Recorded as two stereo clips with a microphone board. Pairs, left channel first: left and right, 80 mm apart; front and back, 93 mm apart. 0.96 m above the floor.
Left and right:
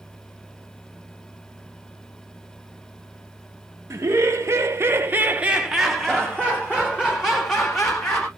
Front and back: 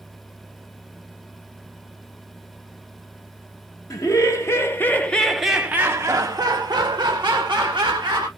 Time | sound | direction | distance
3.9 | laughter | 40° right | 1.1 m